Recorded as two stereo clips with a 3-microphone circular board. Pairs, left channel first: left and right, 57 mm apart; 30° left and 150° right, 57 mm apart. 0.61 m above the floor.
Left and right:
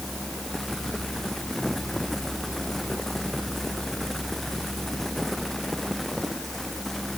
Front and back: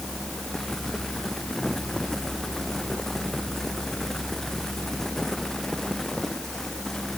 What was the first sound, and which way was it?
Only background noise.